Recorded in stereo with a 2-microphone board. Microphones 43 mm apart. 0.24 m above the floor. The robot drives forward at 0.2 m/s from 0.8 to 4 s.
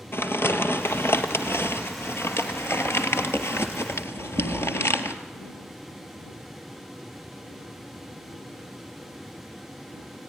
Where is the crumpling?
70° left (ahead or behind), 1.7 m; by 5.2 s 80° left, 1.6 m.